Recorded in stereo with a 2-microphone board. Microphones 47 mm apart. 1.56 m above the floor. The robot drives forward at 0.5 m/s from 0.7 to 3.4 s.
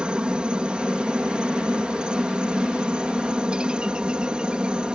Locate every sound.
0.0 s a helicopter: 20° right (ahead or behind)